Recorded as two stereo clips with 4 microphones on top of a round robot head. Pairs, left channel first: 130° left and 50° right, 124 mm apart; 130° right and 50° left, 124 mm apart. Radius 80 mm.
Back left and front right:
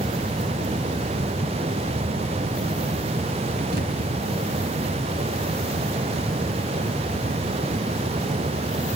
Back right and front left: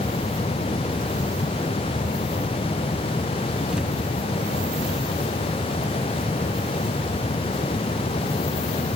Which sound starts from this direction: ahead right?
A thud, at 3.7 s.